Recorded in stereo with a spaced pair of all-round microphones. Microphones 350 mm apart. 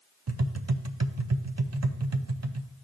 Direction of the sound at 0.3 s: 45° right (ahead or behind).